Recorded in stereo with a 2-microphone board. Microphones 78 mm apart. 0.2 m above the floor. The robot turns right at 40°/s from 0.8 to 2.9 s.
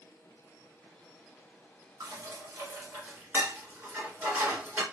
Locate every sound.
2.0 s dishes clattering: 50° right (ahead or behind), 1.5 m; by 4.8 s 20° right (ahead or behind), 1.5 m